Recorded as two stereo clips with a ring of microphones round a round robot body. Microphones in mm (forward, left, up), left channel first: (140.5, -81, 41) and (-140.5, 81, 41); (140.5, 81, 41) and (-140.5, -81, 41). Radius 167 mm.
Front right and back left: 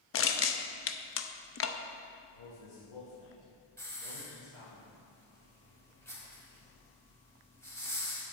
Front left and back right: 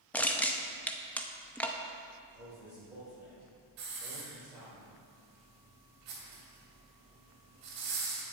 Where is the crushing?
55° right, 0.7 m.